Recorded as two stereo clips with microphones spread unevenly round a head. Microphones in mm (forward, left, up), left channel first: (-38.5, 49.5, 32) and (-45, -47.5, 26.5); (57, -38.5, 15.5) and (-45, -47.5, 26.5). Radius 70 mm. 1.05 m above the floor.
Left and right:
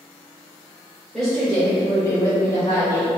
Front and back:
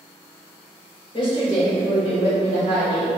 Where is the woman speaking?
5° right, 1.5 m; by 3.1 s 30° left, 2 m.